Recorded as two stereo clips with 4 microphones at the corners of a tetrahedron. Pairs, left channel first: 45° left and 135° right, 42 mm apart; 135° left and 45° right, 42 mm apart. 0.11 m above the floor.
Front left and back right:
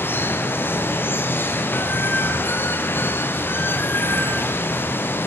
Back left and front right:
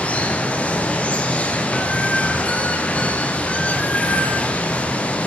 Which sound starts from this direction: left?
Running water, at 0.0 s.